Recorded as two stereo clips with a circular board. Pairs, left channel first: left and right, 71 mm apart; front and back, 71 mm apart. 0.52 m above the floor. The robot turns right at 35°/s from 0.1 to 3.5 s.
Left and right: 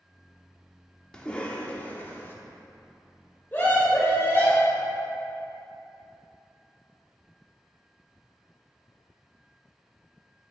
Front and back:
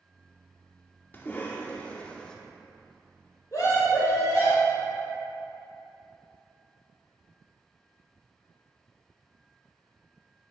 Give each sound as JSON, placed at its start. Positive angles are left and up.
{"t": 1.1, "sound": "a cough", "azimuth_deg": 25, "distance_m": 0.8}
{"t": 3.5, "sound": "a scream", "azimuth_deg": 30, "distance_m": 1.7}